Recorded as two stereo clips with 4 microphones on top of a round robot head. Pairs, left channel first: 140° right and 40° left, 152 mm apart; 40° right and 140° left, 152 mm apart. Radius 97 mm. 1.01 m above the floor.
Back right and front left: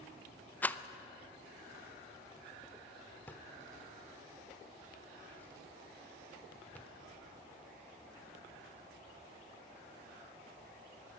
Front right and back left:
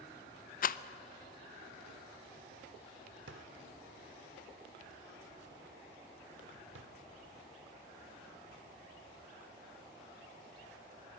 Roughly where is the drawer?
Behind left.